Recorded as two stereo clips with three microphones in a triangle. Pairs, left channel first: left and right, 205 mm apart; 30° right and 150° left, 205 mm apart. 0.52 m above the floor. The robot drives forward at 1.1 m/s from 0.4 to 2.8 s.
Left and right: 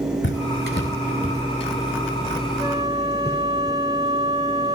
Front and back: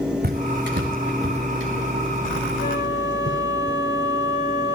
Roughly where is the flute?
Ahead.